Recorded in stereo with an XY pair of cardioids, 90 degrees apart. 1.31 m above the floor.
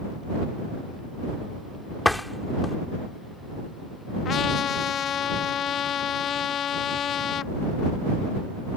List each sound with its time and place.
2.0 s a door slam: 5° left
4.2 s a trumpet: 70° left